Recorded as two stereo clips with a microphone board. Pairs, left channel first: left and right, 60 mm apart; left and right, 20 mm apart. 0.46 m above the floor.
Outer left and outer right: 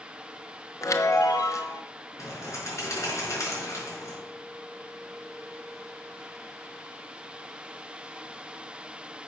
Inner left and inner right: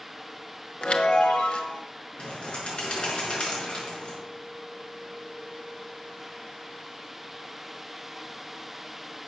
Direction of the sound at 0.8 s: 60° left (ahead or behind).